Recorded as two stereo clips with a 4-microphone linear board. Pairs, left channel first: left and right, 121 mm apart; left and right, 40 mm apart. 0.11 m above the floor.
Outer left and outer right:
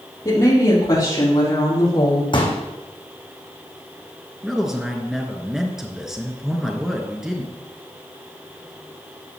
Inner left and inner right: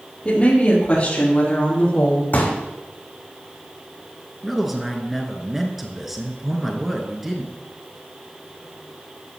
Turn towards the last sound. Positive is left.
turn(degrees=-5)  # may be behind; listen again after turning